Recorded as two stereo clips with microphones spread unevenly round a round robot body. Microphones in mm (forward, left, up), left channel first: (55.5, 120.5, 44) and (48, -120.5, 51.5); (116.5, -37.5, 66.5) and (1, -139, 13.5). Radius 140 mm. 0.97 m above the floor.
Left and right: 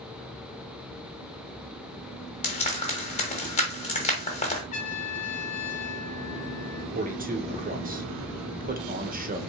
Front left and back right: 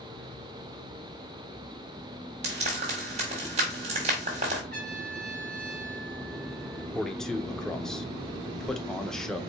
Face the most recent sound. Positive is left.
turn(degrees=-75)